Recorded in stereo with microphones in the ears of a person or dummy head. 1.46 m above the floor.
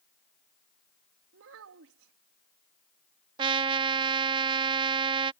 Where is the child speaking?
70° right (ahead or behind).